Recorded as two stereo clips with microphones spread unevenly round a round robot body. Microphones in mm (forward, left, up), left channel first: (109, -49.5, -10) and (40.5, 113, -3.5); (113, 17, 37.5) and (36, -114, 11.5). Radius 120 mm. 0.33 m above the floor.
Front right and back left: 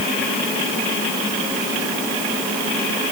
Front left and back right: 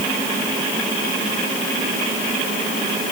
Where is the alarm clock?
I don't hear an alarm clock.